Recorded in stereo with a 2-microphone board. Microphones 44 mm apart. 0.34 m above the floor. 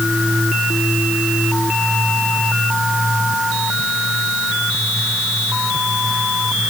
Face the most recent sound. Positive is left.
No sound to turn to.